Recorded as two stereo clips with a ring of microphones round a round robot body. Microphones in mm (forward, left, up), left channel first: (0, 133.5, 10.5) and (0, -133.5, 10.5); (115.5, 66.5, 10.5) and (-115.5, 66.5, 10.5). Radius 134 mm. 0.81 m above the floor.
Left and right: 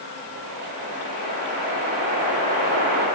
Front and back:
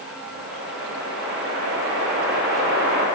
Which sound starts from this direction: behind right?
A whoosh, at 0.3 s.